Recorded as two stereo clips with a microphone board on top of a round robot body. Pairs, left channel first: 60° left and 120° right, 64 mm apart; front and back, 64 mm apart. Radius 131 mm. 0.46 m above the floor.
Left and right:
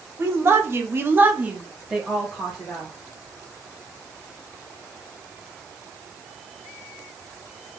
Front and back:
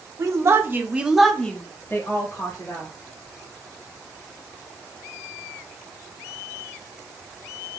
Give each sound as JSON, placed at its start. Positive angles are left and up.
{"t": 0.2, "sound": "a woman speaking", "azimuth_deg": -160, "distance_m": 1.3}